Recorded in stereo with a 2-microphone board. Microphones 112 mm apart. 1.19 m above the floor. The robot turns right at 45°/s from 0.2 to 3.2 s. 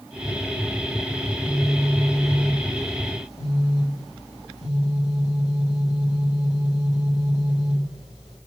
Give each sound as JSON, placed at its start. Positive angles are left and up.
{"t": 1.2, "sound": "a phone buzzing", "azimuth_deg": -25, "distance_m": 2.0}